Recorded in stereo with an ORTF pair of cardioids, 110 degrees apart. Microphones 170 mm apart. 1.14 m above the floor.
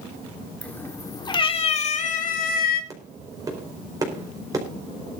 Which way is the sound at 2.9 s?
20° right.